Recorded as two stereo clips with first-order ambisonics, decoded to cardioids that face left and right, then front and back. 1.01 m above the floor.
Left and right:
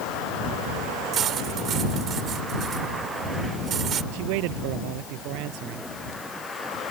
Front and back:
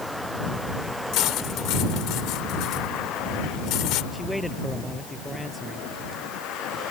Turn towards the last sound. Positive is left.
turn(degrees=-90)